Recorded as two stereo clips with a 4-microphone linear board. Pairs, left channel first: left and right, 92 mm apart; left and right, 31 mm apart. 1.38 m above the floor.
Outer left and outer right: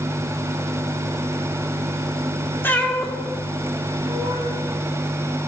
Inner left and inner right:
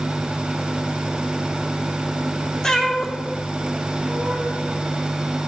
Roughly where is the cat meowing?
Left.